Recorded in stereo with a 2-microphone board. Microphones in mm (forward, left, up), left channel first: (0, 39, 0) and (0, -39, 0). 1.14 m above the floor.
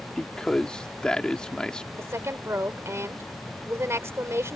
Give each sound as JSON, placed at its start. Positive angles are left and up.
{"t": 0.2, "sound": "a man speaking", "side_deg": 10}
{"t": 2.0, "sound": "a woman speaking", "side_deg": -35}